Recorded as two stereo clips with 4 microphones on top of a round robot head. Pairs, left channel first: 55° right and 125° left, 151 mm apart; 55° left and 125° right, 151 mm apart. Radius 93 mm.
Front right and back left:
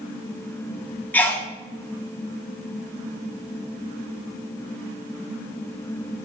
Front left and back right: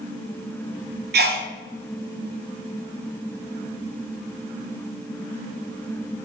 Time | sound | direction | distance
1.1 | a sneeze | 130° right | 0.8 m